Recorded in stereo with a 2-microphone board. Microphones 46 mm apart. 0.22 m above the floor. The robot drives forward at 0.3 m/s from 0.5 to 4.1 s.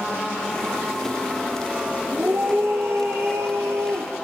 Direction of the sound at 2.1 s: 65° right (ahead or behind).